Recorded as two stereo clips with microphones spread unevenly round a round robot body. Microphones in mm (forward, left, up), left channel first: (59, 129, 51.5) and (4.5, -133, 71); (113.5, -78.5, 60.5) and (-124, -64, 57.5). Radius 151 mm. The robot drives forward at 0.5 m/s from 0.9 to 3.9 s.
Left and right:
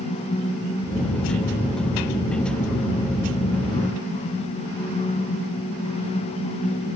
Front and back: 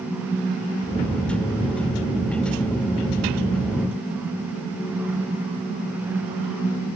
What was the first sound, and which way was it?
Only background noise.